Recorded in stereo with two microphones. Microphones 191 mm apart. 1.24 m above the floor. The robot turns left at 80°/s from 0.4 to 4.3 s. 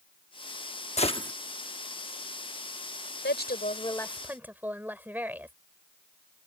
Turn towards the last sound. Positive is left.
turn(degrees=-10)